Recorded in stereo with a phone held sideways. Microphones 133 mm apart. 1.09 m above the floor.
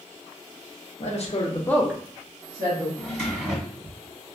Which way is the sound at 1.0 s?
60° left (ahead or behind).